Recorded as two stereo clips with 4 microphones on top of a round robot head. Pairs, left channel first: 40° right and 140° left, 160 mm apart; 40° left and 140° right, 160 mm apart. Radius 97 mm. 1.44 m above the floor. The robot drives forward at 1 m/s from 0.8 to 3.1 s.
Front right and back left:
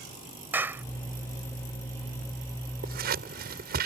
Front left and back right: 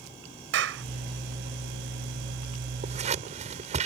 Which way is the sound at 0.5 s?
140° right.